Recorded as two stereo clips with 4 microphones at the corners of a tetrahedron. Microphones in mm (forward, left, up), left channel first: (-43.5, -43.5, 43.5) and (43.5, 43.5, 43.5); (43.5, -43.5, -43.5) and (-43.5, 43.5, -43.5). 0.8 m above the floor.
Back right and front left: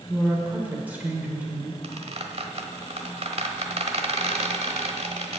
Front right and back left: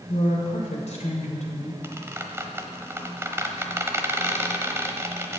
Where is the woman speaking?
30° right, 3 m.